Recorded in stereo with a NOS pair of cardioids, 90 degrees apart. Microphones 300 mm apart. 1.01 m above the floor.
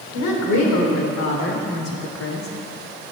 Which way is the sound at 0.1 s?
70° left.